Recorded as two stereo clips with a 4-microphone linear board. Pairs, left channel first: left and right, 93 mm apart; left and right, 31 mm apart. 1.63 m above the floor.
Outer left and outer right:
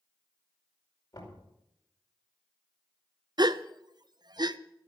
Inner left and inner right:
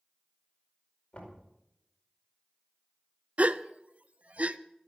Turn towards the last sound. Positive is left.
turn(degrees=-50)  # may be behind; listen again after turning